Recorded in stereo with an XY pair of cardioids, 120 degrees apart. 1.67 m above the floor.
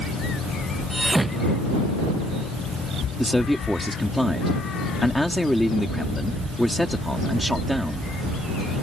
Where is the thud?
10° right.